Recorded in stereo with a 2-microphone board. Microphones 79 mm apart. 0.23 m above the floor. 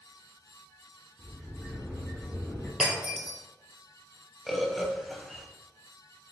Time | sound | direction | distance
1.2 | a sliding door | 25° left (ahead or behind) | 1.3 m
2.8 | breaking glass | 5° right (ahead or behind) | 1.2 m
4.5 | a bird | centre (ahead or behind) | 0.6 m